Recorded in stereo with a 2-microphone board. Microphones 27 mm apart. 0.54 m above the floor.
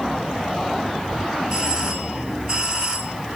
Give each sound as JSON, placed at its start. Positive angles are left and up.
{"t": 1.5, "sound": "a doorbell", "side_deg": -25, "distance_m": 4.0}